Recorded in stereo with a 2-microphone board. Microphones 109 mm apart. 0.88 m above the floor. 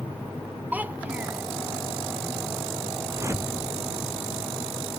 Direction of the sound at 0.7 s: 15° right (ahead or behind).